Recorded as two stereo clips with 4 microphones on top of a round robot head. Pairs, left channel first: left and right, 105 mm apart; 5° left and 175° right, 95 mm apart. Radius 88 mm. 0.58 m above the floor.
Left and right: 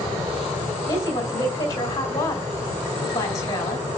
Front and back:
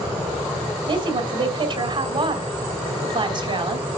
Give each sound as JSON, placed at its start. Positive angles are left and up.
{"t": 0.9, "sound": "a woman speaking", "azimuth_deg": 150, "distance_m": 3.0}